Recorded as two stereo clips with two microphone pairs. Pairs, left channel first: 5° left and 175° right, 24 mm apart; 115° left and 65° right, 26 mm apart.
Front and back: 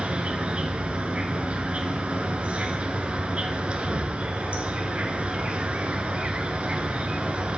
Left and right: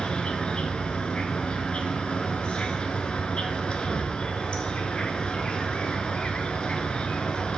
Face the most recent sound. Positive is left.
turn(degrees=155)